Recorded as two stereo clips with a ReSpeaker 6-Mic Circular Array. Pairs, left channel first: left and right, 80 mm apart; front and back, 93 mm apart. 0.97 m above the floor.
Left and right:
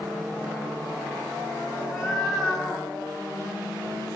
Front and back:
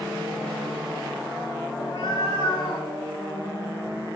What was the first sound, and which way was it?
A cat meowing, 5° right.